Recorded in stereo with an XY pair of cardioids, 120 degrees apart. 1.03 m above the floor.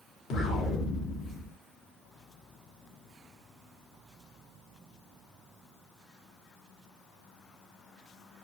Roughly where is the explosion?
Ahead left.